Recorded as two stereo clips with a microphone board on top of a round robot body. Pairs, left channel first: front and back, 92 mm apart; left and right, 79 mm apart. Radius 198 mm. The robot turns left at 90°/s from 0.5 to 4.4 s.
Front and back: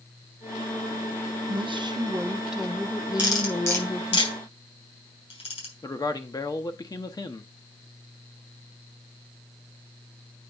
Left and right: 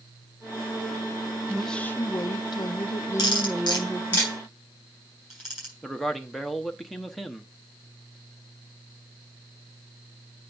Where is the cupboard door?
I don't hear a cupboard door.